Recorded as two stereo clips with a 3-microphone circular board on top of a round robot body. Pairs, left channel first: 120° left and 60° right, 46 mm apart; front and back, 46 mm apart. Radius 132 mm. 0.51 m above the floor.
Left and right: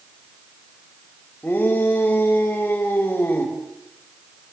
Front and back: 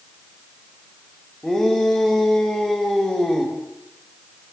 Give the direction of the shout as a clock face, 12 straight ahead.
10 o'clock.